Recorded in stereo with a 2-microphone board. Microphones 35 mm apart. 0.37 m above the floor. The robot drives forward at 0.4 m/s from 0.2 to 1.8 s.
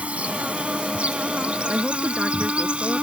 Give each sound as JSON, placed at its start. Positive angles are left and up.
{"t": 0.0, "sound": "an insect", "side_deg": -40}
{"t": 1.7, "sound": "a woman speaking", "side_deg": -30}